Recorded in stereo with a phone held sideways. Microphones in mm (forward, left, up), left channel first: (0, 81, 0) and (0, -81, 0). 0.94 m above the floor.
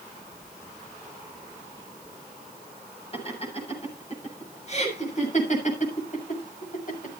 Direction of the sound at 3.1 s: 40° left (ahead or behind).